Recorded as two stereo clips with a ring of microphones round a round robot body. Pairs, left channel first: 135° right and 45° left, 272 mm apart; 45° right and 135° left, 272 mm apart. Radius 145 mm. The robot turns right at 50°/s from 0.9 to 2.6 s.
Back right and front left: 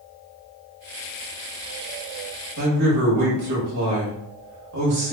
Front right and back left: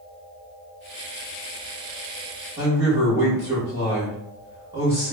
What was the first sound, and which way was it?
A man speaking, 60° left.